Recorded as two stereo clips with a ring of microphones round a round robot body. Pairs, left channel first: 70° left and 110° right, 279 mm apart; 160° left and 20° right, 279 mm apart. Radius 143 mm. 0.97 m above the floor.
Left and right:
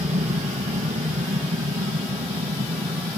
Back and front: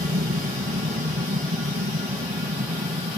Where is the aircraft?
65° right.